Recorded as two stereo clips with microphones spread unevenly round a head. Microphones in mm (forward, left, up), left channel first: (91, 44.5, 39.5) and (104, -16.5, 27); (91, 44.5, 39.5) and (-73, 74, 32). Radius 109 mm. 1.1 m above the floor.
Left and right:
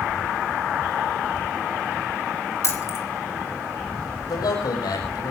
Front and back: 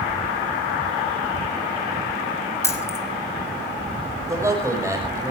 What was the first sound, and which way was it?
Keys jangling, 65° left.